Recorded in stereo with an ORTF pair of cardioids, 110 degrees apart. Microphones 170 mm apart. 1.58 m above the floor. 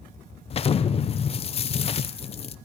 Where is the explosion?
35° left, 0.7 m.